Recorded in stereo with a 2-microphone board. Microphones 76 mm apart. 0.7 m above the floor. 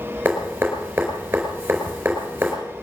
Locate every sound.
0.2 s dripping: 25° right (ahead or behind), 4.5 m